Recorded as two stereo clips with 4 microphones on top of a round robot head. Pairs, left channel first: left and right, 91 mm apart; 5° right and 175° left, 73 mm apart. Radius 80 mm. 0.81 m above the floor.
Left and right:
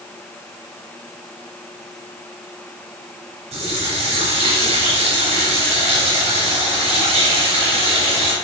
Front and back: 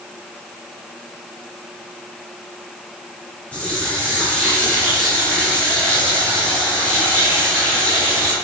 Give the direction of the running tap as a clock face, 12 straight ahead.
3 o'clock.